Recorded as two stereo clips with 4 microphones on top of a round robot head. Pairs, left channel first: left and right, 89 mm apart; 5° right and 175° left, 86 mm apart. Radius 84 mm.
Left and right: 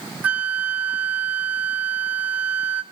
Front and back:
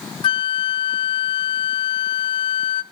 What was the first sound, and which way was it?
A flute, 15° right.